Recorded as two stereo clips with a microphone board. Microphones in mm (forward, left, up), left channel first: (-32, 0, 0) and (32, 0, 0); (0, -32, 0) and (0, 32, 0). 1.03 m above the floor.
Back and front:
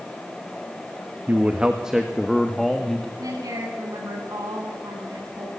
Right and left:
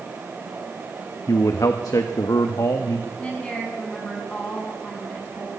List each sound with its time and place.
1.3 s a man speaking: 60° right, 1.1 m; by 3.1 s 100° right, 1.7 m
3.2 s a woman speaking: 20° right, 8 m